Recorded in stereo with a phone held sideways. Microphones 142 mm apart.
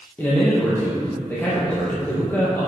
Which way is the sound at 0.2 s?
15° left (ahead or behind).